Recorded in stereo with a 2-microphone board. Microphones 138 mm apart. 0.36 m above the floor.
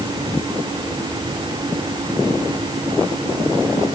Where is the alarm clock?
I don't hear an alarm clock.